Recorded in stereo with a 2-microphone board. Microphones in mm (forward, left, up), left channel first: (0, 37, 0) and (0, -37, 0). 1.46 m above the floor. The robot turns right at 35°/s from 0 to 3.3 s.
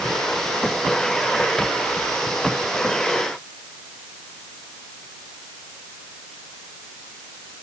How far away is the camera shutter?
No camera shutter in this recording.